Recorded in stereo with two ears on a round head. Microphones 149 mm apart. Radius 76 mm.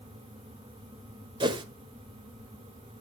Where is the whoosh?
30° right (ahead or behind), 1.6 m.